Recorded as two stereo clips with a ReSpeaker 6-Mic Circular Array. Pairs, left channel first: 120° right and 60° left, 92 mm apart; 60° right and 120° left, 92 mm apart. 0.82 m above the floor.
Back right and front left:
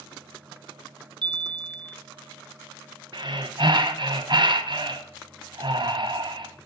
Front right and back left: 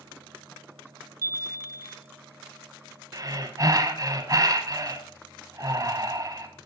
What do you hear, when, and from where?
1.2 s a chime: 70° left, 0.7 m
3.1 s breathing: 75° left, 1.1 m